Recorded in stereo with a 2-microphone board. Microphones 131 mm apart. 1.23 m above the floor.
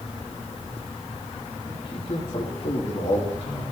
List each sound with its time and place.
1.7 s a man speaking: 40° left (ahead or behind), 2.5 m; by 3.6 s 65° left (ahead or behind), 3.5 m